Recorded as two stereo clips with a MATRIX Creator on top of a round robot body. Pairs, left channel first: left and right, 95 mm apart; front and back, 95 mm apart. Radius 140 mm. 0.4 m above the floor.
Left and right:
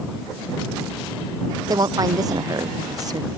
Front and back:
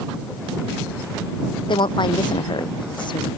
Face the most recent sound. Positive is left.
turn(degrees=-40)